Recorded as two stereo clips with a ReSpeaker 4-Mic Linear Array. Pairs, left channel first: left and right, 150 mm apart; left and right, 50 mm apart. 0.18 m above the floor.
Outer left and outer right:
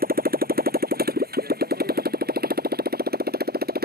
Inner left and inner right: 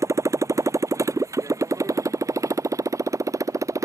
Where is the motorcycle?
70° right (ahead or behind); by 3.9 s 85° right.